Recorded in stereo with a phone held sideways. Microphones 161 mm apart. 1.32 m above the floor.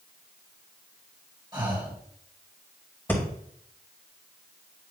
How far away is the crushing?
No crushing in this recording.